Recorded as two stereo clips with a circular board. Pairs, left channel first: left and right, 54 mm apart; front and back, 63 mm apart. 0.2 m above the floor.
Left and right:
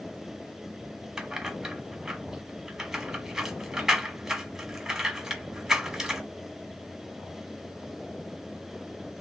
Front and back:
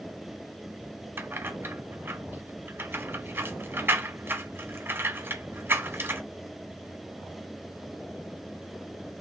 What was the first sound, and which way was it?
Keys jangling, 165° right.